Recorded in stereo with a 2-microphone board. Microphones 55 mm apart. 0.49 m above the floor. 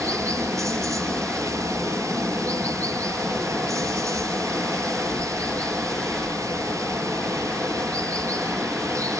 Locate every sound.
0.0 s running water: 85° right, 6 m